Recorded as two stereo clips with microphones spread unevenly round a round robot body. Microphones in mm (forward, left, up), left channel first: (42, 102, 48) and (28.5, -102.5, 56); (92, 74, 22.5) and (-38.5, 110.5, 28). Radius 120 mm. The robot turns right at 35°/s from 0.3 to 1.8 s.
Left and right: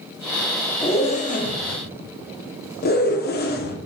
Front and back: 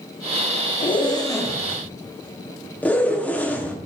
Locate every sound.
0.8 s a zipper: 25° left, 1.2 m; by 3.8 s 60° left, 1.2 m